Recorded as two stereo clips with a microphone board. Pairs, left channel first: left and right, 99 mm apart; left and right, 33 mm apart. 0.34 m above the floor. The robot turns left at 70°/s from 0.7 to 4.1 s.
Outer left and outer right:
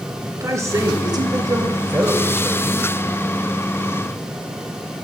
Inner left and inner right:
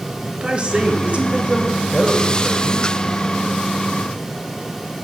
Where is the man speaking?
55° right, 1.3 m; by 2.9 s 150° left, 1.3 m.